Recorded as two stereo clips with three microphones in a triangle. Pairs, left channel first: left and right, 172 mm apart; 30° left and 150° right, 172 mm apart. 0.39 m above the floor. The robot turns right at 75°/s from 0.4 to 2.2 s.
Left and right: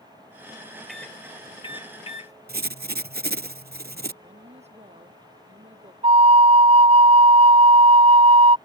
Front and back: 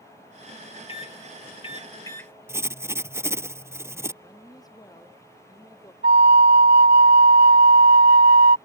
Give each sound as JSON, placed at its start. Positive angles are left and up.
{"t": 0.9, "sound": "a microwave", "azimuth_deg": 0}
{"t": 2.5, "sound": "writing", "azimuth_deg": -75}
{"t": 4.2, "sound": "a woman speaking", "azimuth_deg": -40}
{"t": 6.0, "sound": "a flute", "azimuth_deg": -145}